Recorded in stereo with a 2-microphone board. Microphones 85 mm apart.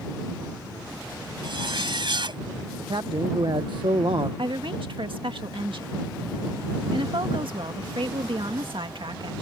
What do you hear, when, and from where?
1.4 s a zipper: 70° right (ahead or behind)
2.8 s a man speaking: 65° right (ahead or behind)
4.4 s a woman speaking: 80° right